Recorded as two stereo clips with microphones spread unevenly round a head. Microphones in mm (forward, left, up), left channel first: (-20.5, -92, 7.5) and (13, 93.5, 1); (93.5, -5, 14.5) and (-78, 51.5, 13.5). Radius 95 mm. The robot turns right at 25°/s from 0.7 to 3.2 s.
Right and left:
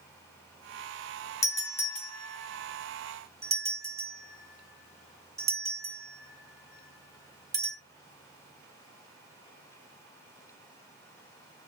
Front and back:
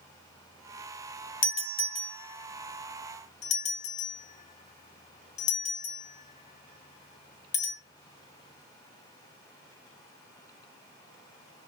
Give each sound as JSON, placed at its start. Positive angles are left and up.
{"t": 1.4, "sound": "a doorbell", "azimuth_deg": -30, "distance_m": 1.3}